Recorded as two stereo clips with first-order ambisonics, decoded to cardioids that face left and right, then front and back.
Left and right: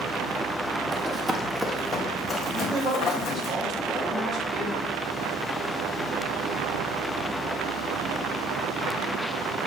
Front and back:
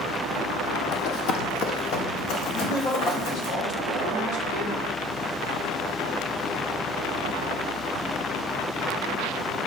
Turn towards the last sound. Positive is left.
turn(degrees=-20)